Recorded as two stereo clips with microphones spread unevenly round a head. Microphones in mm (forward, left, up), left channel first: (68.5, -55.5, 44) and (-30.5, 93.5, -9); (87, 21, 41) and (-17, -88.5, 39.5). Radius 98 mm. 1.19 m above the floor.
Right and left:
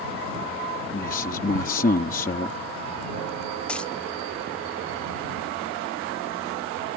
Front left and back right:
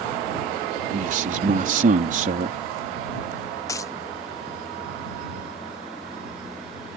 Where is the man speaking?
105° right.